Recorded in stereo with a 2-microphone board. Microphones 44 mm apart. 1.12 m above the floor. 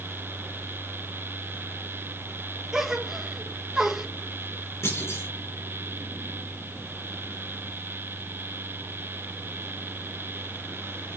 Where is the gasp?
10° right (ahead or behind), 1.6 m.